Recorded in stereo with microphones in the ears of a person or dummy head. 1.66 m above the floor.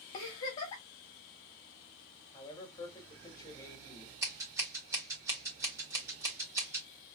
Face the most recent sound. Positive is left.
turn(degrees=-20)  # may be behind; listen again after turning